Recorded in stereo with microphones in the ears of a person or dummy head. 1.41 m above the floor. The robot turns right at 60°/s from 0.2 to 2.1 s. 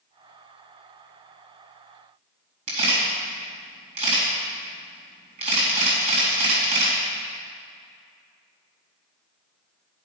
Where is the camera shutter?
45° right (ahead or behind), 4 m.